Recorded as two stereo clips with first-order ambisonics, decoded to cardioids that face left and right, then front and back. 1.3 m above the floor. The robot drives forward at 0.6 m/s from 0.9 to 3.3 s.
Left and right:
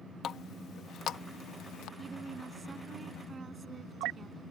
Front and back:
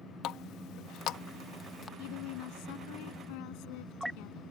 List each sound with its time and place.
0.2 s a running tap: 35° left; by 1.9 s 60° left
2.0 s a woman speaking: 15° right